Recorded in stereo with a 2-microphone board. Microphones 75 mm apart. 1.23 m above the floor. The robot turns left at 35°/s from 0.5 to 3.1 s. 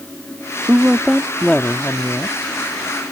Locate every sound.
0.7 s a woman speaking: 165° right; by 2.4 s 140° left